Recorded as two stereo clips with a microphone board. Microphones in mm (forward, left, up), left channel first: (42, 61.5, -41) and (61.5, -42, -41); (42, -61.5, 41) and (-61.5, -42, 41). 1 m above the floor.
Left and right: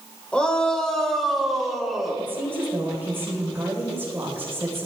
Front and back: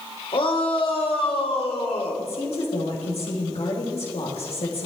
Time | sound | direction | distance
0.3 | a shout | 20° left | 3 m
2.2 | a woman speaking | 10° right | 4 m